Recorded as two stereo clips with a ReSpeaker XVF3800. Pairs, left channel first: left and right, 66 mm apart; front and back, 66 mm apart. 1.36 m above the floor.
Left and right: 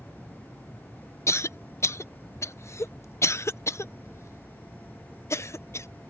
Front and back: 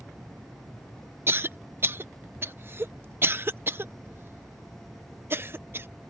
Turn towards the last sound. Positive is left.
turn(degrees=130)